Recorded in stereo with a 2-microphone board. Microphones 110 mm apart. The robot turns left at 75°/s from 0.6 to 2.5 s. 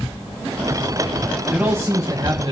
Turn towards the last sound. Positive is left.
turn(degrees=-90)